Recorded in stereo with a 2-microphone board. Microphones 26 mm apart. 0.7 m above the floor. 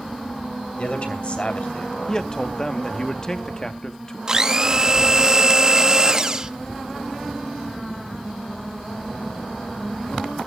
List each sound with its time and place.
0.8 s a man speaking: 50° left (ahead or behind), 3 m
2.1 s a man speaking: 25° left (ahead or behind), 1.0 m
4.3 s a blender: 25° right (ahead or behind), 0.8 m